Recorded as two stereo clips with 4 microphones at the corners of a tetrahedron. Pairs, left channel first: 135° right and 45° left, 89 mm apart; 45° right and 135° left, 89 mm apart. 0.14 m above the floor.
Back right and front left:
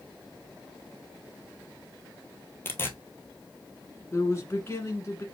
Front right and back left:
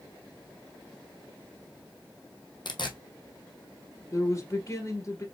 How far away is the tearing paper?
About 1.0 m.